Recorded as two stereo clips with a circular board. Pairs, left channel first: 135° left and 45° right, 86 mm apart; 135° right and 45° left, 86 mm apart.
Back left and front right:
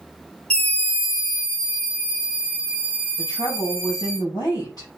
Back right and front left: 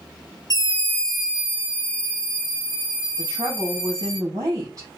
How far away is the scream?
About 0.7 m.